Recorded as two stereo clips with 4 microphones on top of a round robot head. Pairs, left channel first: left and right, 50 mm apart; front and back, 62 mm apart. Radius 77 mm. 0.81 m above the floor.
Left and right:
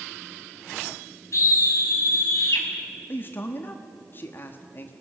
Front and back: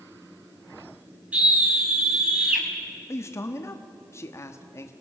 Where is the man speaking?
40° left, 1.2 m.